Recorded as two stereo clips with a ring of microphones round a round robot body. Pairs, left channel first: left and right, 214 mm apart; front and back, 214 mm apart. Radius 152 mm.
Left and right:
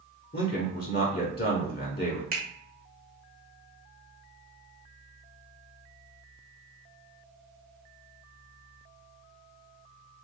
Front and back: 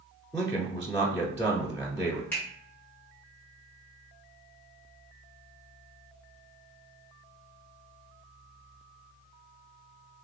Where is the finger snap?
80° right, 1.4 m.